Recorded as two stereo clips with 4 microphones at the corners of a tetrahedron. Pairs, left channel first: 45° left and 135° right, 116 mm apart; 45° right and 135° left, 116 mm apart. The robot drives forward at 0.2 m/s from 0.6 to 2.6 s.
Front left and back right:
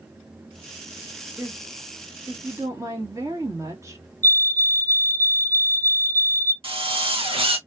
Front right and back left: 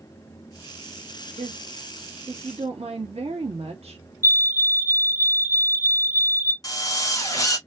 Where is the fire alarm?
85° left, 1.2 m.